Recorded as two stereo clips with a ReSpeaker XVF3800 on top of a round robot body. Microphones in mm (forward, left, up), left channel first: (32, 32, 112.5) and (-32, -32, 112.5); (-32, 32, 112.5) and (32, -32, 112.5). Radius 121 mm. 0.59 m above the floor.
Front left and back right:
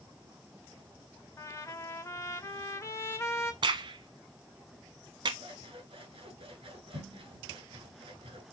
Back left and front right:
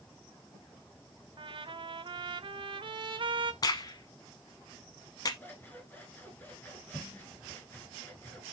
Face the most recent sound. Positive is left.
turn(degrees=-155)